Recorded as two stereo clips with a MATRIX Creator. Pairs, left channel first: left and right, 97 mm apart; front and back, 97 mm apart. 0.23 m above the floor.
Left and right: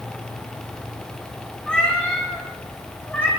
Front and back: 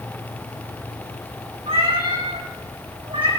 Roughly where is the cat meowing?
Behind.